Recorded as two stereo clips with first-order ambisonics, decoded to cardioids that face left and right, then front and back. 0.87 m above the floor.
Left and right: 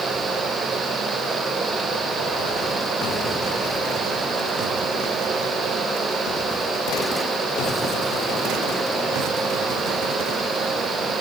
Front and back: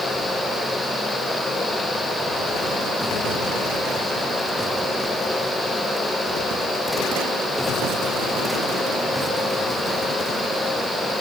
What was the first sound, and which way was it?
Only background noise.